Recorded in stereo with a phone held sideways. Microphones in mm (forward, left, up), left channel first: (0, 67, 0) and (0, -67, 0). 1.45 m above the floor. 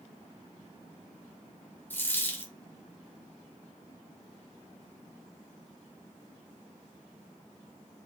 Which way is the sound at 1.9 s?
15° left (ahead or behind).